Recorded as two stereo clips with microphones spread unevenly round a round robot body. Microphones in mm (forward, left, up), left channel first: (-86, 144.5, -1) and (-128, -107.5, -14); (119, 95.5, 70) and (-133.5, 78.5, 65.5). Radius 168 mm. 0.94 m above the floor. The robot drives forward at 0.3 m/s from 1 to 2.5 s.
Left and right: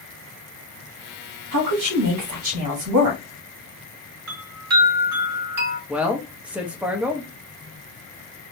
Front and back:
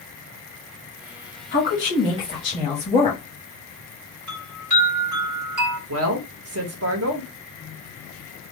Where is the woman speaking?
60° right, 1.4 m; by 3.2 s 70° right, 1.3 m.